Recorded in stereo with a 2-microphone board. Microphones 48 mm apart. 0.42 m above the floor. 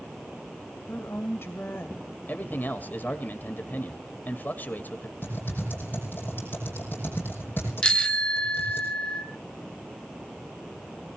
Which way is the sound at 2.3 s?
40° left (ahead or behind).